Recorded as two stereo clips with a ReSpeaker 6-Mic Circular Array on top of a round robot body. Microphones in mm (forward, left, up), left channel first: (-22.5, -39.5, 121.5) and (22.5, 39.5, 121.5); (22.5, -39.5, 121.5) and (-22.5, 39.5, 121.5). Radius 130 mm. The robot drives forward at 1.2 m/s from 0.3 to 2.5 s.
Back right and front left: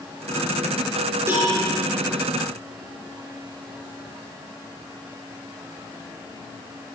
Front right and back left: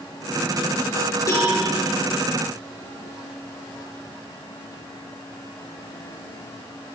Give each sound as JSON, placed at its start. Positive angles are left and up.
{"t": 1.3, "sound": "a cowbell", "azimuth_deg": -5, "distance_m": 7.5}